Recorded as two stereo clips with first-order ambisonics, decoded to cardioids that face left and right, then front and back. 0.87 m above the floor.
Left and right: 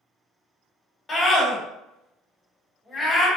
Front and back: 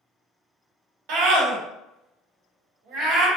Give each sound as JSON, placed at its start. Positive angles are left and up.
{"t": 1.1, "sound": "a scream", "azimuth_deg": 165, "distance_m": 1.2}